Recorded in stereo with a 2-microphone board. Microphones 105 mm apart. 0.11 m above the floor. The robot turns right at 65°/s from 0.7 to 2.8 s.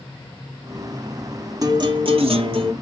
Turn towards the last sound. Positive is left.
turn(degrees=-65)